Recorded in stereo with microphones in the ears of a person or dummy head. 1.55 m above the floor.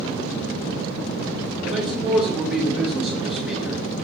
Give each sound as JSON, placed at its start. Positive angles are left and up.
{"t": 1.6, "sound": "a man speaking", "side_deg": 0, "distance_m": 1.3}